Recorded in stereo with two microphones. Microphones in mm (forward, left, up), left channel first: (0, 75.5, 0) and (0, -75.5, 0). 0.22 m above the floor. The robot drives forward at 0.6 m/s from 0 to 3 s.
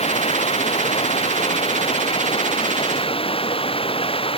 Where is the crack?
No crack in this recording.